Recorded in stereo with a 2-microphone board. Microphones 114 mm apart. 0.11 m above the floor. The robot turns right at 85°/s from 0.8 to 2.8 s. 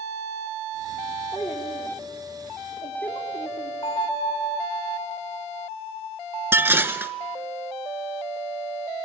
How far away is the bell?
About 8.5 m.